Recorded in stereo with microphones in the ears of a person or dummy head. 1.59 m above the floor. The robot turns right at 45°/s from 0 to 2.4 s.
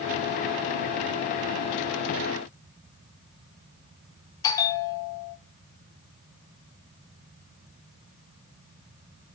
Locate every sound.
4.4 s a bell: 15° left (ahead or behind), 0.5 m